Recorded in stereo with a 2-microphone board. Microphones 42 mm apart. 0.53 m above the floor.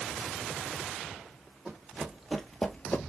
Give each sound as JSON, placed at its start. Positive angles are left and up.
{"t": 1.6, "sound": "running footsteps", "side_deg": -15, "distance_m": 1.6}